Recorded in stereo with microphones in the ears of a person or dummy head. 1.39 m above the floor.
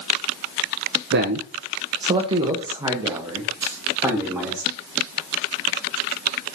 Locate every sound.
1.1 s a man speaking: 65° right (ahead or behind), 0.8 m; by 4.6 s 15° right (ahead or behind), 2.5 m
3.6 s a dropped coin: 20° right (ahead or behind), 3 m